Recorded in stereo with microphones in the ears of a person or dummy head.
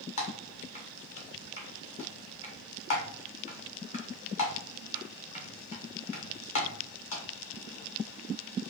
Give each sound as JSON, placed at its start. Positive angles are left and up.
{"t": 0.2, "sound": "typing on a keyboard", "side_deg": 35, "distance_m": 0.9}